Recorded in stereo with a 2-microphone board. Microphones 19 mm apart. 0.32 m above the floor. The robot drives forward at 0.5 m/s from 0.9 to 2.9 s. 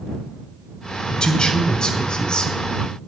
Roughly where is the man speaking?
Left.